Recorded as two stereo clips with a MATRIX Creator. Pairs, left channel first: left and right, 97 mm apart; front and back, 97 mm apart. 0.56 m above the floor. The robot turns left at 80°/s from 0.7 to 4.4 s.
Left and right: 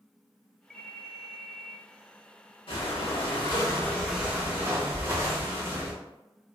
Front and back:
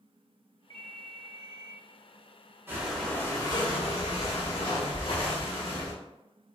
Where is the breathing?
115° left, 1.0 m; by 6.0 s 25° right, 1.0 m.